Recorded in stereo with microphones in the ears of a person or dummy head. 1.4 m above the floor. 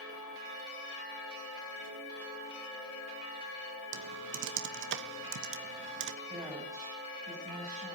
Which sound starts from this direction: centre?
A woman speaking, at 6.2 s.